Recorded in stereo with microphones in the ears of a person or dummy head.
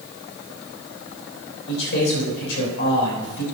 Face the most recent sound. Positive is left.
turn(degrees=65)  # may be behind; listen again after turning